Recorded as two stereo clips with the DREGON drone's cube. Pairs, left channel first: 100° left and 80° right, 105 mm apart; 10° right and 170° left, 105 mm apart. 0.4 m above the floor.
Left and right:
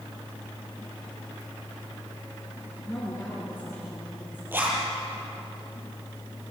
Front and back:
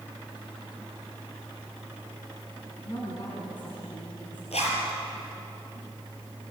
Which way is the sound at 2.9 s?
30° left.